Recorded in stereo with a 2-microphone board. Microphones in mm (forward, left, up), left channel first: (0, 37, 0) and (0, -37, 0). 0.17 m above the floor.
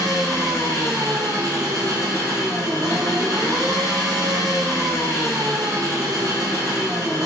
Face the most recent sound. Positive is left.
turn(degrees=-55)  # may be behind; listen again after turning